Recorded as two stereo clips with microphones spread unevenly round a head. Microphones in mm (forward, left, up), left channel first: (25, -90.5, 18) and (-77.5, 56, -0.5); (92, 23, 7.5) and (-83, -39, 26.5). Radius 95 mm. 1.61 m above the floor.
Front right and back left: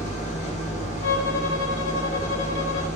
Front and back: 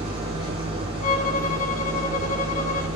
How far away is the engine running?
About 6 m.